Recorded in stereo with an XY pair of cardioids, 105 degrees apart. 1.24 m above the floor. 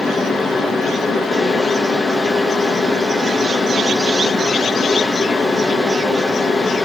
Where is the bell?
I don't hear a bell.